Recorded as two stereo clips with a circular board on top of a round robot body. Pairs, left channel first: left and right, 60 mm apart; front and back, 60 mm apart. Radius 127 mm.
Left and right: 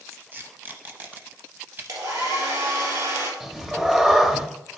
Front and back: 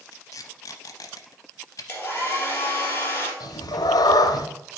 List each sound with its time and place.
0.1 s tape being pulled: 30° right, 0.7 m
1.9 s a hair dryer: 60° right, 2.5 m
3.4 s a cat meowing: 5° right, 0.8 m